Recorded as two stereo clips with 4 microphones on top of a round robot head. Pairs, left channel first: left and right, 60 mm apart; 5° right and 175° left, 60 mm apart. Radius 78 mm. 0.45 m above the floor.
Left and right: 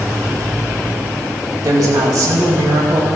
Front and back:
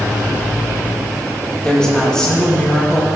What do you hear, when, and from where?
1.6 s a woman speaking: 85° right, 3.5 m